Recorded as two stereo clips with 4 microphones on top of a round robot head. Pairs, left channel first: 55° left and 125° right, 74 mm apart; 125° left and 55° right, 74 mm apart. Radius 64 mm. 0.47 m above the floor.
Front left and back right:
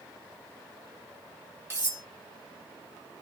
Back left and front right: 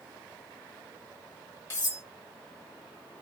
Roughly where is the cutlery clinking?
Behind.